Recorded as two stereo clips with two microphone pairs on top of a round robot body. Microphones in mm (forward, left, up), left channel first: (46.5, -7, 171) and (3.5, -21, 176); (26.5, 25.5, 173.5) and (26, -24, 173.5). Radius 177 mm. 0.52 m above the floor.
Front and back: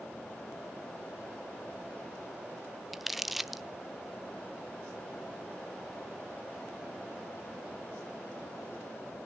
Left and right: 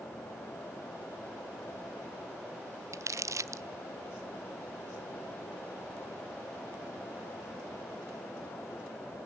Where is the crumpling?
75° right, 0.9 m.